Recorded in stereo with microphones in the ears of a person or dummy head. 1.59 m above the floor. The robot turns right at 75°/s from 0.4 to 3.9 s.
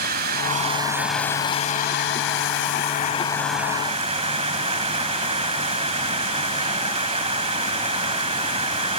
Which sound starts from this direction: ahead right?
Running water, at 0.0 s.